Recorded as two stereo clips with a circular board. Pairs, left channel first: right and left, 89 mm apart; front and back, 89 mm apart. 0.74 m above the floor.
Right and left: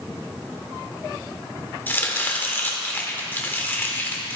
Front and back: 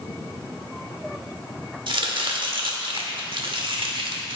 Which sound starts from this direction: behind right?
Chopping, at 1.9 s.